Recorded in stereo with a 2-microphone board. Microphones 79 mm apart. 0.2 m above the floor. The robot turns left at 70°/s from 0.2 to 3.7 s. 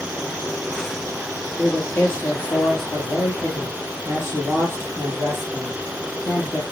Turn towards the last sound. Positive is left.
turn(degrees=45)